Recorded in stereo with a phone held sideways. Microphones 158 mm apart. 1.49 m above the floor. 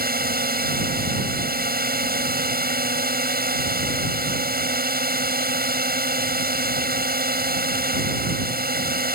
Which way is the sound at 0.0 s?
80° right.